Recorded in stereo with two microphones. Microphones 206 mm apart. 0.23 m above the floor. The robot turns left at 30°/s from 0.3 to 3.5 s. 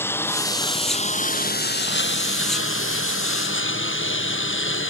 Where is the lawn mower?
170° left; by 4.9 s 75° left.